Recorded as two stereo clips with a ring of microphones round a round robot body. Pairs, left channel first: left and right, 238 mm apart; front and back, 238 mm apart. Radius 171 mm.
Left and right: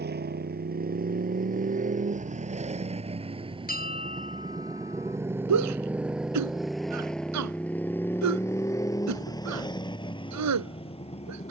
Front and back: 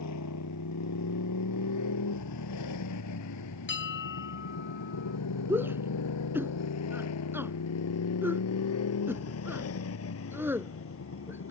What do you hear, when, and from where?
0.0 s a motorcycle: 45° right; by 11.5 s 25° left
3.7 s a bell: 35° left
5.5 s a shout: 95° right